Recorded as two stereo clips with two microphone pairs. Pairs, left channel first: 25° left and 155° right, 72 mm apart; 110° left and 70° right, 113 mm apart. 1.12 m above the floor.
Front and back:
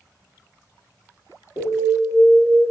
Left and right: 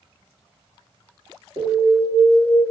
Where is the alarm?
15° right, 1.7 m.